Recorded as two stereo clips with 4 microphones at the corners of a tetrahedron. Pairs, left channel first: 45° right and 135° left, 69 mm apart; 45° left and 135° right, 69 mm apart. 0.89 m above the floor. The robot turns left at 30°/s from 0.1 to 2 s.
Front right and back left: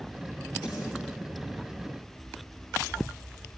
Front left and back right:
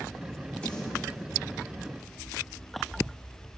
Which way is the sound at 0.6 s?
30° right.